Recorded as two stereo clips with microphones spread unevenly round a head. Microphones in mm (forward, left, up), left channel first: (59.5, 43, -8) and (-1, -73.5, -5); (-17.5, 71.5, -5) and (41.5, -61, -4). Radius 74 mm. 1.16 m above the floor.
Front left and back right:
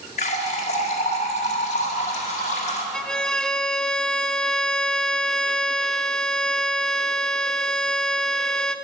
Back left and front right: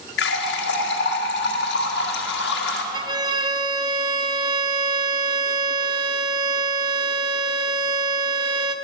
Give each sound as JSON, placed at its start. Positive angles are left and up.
{"t": 0.2, "sound": "a running tap", "azimuth_deg": 110, "distance_m": 1.6}
{"t": 2.9, "sound": "a violin", "azimuth_deg": -20, "distance_m": 0.5}